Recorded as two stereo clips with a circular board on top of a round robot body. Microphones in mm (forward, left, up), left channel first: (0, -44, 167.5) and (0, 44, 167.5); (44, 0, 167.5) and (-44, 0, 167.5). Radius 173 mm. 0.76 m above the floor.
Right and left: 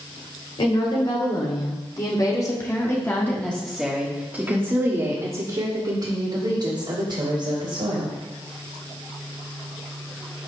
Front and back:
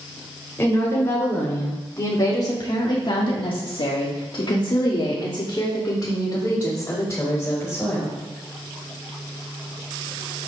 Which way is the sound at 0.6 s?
65° right.